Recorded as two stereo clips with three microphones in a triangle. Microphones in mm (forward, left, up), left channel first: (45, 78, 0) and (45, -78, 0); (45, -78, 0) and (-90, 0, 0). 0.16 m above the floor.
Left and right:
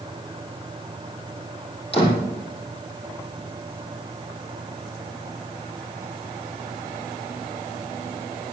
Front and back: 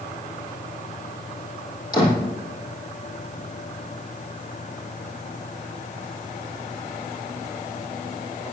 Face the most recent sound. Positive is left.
turn(degrees=35)